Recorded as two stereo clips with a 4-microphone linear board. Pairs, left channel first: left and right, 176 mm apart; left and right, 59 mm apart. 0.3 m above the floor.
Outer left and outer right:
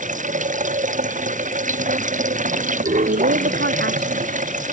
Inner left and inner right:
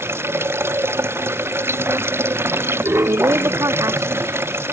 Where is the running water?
45° right (ahead or behind).